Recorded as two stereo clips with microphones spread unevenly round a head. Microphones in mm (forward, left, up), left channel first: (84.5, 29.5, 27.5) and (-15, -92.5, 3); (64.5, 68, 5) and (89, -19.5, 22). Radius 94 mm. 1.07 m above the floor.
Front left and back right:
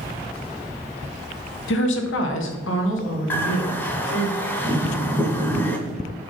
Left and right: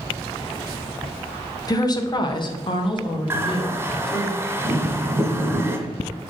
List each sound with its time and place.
1.7 s a woman speaking: 65° left, 1.0 m; by 4.3 s 80° left, 2.5 m
3.3 s a bird: 20° right, 1.5 m